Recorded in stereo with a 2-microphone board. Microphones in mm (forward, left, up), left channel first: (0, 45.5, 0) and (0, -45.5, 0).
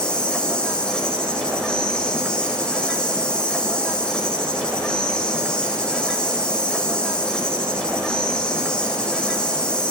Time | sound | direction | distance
0.0 | an insect | 10° left (ahead or behind) | 4.5 m